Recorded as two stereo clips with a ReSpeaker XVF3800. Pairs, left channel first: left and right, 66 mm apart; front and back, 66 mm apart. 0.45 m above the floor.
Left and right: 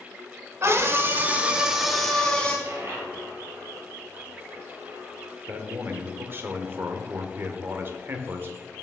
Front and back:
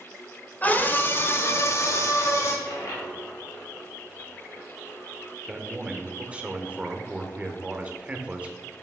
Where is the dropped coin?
40° right, 2.5 m.